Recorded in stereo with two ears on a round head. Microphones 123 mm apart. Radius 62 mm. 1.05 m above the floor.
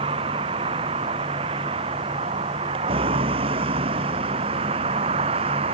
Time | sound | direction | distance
0.0 | a vehicle | 40° right (ahead or behind) | ?